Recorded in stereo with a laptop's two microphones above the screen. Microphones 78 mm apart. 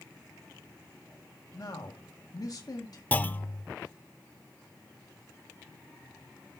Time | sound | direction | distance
1.5 | a man speaking | 55° left (ahead or behind) | 1.6 m
3.1 | a clunk | 20° left (ahead or behind) | 0.6 m